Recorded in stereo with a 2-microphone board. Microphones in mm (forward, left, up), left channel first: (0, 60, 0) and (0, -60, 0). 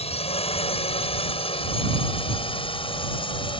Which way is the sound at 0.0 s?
55° left (ahead or behind).